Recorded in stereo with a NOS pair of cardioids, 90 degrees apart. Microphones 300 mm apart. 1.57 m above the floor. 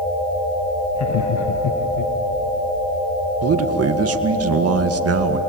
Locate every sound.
0.9 s laughter: 55° left, 1.5 m; by 2.1 s 75° left, 1.8 m
3.4 s a man speaking: 45° right, 1.9 m